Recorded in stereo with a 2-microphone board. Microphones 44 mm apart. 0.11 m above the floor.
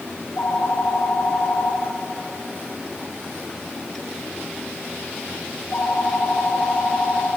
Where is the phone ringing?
45° left (ahead or behind), 4.5 m.